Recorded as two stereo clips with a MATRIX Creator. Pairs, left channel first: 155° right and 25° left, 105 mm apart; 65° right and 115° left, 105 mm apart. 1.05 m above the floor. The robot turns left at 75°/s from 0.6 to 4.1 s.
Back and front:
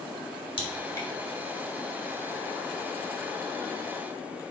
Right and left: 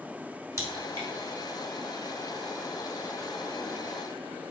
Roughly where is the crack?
Behind.